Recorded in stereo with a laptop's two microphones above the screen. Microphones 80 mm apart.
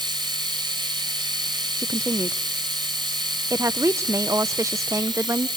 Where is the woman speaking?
40° right (ahead or behind), 0.5 m.